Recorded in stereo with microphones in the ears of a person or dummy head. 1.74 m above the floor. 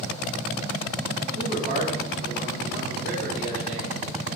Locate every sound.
1.3 s a man speaking: 50° right (ahead or behind), 3.5 m